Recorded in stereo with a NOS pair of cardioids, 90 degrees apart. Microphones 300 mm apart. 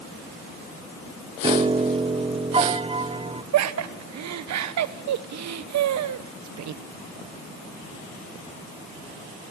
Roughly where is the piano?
Ahead.